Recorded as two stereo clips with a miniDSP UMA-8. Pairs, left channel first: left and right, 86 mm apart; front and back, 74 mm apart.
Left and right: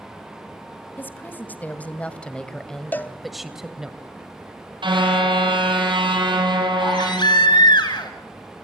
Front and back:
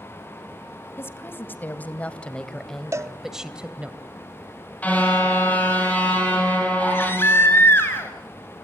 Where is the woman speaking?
35° left, 1.9 m; by 3.9 s 155° right, 1.5 m.